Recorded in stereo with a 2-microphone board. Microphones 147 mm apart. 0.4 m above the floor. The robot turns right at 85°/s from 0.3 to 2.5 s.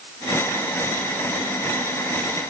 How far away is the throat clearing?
I don't hear throat clearing.